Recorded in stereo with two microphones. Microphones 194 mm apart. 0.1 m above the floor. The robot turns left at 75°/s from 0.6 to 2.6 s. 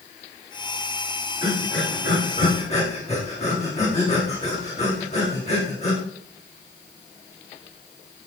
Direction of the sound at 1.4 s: 55° left (ahead or behind).